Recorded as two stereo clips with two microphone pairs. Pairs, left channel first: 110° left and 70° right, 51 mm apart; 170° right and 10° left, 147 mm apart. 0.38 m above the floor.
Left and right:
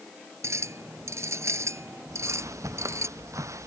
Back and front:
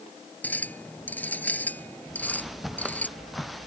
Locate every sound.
0.4 s a clink: 90° right
2.1 s footsteps: 75° right; by 3.7 s 80° right